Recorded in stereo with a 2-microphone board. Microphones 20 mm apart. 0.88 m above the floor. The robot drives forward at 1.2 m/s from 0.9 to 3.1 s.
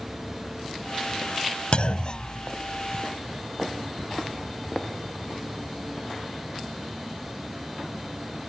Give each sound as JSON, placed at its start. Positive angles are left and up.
{"t": 1.7, "sound": "a clunk", "side_deg": 55}